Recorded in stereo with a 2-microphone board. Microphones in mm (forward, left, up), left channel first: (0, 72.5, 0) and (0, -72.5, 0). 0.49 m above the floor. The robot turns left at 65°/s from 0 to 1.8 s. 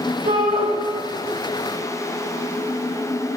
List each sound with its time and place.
0.2 s a shout: 70° right (ahead or behind), 3.5 m; by 0.7 s 50° right (ahead or behind), 3.5 m